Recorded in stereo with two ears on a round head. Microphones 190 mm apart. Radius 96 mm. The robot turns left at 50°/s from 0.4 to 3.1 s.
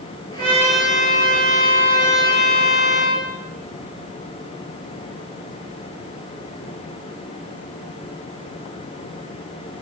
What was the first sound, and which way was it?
A trumpet, 135° right.